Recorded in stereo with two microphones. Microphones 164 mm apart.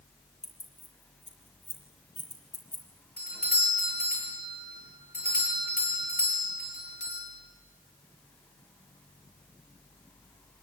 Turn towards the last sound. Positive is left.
turn(degrees=65)  # may be behind; listen again after turning